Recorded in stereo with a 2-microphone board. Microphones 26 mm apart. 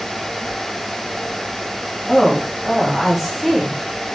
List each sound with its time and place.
2.1 s a woman speaking: centre (ahead or behind), 2.0 m